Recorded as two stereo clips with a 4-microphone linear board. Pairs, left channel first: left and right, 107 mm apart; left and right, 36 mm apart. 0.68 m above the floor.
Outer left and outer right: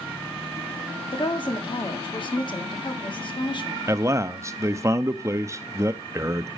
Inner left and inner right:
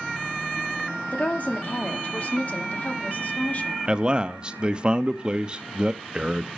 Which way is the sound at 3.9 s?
30° right (ahead or behind).